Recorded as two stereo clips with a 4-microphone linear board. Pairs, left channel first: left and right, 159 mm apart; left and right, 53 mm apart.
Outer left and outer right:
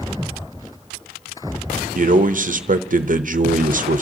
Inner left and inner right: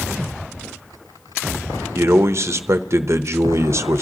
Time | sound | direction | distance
1.9 | a man speaking | 55° right (ahead or behind) | 0.8 m